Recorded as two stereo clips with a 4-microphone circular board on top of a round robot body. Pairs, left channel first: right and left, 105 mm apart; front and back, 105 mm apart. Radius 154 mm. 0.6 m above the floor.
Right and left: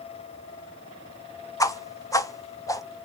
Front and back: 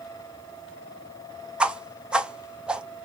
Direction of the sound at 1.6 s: 110° right.